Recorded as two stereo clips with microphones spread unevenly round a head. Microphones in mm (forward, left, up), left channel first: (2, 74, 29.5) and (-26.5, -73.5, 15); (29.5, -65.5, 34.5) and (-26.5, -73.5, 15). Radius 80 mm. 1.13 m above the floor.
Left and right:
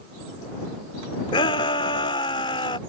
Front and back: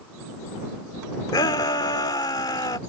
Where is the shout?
15° left.